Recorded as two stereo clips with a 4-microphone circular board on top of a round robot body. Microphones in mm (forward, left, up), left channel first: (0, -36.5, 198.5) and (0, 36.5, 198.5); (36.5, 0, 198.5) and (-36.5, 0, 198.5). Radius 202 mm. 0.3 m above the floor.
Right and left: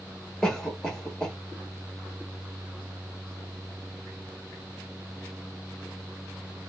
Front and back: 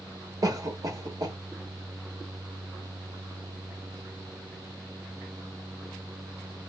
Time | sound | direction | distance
0.4 | a cough | 170° right | 1.5 m